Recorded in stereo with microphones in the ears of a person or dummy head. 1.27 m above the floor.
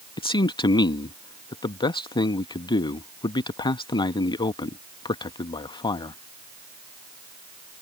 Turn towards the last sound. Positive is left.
turn(degrees=25)  # may be behind; listen again after turning